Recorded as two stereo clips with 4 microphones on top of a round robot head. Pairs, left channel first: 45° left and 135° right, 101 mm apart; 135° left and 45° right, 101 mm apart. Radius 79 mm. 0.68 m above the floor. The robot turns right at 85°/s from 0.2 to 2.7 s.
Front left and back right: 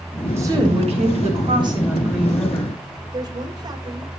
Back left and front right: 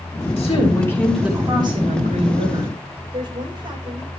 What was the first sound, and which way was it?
A woman speaking, 160° left.